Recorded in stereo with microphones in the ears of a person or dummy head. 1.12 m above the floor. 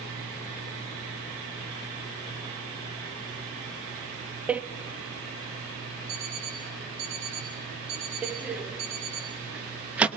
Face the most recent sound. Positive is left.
turn(degrees=-10)  # may be behind; listen again after turning